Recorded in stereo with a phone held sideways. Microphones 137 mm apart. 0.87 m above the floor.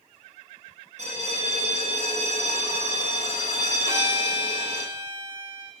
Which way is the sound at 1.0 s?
55° right (ahead or behind).